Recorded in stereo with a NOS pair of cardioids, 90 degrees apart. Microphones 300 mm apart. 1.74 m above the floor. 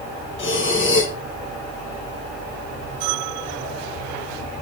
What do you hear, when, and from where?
0.4 s breathing: 40° left, 2 m